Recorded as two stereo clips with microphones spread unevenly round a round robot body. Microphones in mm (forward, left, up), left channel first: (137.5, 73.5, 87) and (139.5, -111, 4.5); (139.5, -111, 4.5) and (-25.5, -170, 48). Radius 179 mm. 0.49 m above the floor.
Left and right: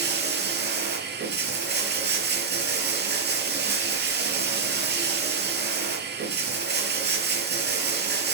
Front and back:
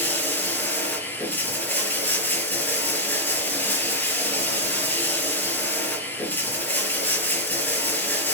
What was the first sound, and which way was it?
Running water, 60° right.